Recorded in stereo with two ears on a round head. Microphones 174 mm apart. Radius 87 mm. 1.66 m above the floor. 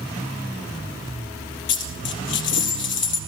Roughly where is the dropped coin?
Left.